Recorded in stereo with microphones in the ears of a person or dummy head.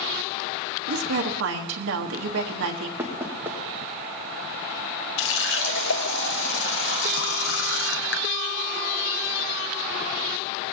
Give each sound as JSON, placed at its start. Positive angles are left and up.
{"t": 0.9, "sound": "a woman speaking", "side_deg": -65, "distance_m": 1.2}
{"t": 3.0, "sound": "knocking", "side_deg": -10, "distance_m": 2.0}
{"t": 5.2, "sound": "a running tap", "side_deg": 65, "distance_m": 0.9}